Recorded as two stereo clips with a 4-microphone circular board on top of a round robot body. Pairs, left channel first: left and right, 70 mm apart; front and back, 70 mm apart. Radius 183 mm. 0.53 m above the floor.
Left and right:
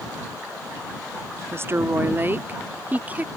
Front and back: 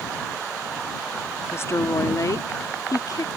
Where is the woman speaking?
45° right; by 3.3 s 25° right.